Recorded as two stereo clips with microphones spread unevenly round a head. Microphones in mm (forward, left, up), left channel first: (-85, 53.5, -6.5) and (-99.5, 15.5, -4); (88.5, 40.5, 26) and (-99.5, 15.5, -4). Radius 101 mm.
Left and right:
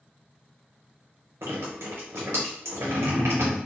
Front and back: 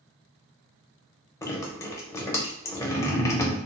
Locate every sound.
1.4 s dripping: 70° right, 0.5 m